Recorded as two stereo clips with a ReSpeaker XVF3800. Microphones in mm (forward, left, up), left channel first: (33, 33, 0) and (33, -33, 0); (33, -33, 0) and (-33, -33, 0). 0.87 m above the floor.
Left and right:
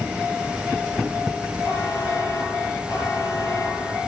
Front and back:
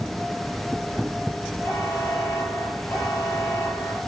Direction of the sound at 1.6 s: 50° left.